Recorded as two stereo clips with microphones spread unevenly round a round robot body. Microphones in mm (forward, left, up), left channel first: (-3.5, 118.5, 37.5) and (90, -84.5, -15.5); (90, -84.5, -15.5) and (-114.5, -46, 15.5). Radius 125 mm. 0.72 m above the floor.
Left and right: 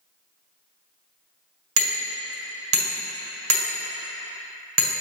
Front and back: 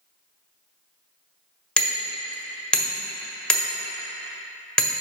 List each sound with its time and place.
1.8 s hammering: 95° right, 1.5 m